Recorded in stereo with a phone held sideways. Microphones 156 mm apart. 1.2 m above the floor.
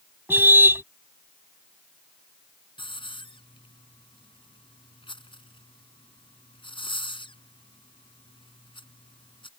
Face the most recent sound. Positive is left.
turn(degrees=35)  # may be behind; listen again after turning